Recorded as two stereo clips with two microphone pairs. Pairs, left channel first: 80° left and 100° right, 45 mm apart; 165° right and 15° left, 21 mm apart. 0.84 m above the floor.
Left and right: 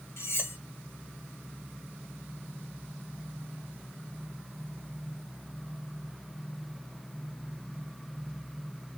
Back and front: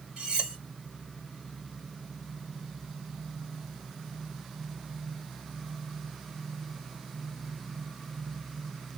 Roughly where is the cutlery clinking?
Ahead left.